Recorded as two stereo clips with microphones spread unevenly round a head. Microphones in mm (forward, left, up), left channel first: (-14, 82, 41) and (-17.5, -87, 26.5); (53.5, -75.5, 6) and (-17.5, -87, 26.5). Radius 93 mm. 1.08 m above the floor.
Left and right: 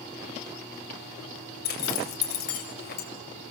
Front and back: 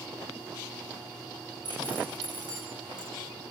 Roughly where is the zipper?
Behind left.